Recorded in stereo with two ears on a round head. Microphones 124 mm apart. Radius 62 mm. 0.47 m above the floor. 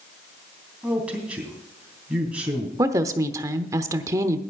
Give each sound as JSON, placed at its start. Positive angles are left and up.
{"t": 0.8, "sound": "a man speaking", "side_deg": -10, "distance_m": 3.0}
{"t": 2.8, "sound": "a woman speaking", "side_deg": -25, "distance_m": 0.9}